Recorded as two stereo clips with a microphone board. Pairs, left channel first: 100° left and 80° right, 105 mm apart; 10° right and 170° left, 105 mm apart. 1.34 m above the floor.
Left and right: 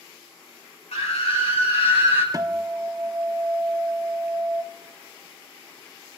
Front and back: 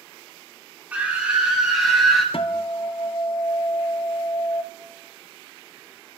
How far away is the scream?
About 3 m.